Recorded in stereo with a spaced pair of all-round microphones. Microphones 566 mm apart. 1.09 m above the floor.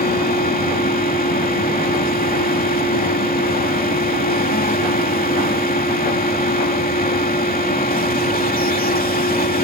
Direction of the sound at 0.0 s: 15° left (ahead or behind).